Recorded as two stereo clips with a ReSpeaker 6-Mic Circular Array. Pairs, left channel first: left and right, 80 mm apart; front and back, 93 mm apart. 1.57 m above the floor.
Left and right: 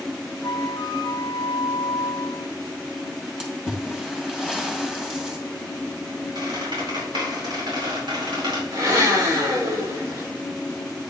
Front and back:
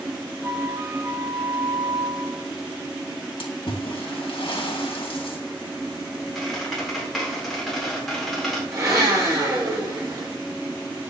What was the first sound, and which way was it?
A flute, 125° left.